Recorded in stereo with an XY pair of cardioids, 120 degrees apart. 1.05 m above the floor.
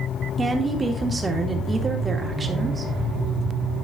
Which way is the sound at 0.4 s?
20° right.